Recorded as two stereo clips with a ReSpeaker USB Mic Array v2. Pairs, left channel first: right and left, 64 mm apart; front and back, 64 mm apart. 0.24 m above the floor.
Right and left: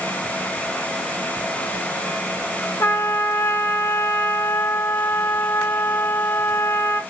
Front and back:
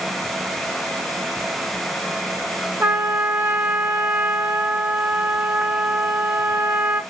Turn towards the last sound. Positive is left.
turn(degrees=-120)